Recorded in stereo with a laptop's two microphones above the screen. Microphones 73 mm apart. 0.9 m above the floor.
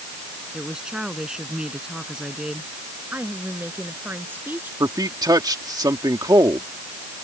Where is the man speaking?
60° right (ahead or behind).